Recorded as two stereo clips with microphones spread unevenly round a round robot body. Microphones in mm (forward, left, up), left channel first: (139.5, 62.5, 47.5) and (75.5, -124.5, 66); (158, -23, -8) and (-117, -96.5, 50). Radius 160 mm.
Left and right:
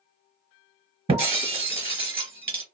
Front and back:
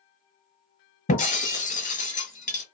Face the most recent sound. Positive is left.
turn(degrees=-55)